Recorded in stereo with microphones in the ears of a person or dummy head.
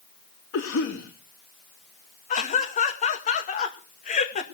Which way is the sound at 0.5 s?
65° left (ahead or behind).